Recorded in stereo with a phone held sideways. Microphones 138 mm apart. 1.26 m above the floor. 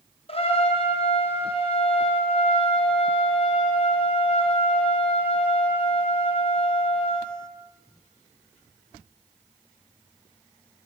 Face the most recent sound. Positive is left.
turn(degrees=45)  # may be behind; listen again after turning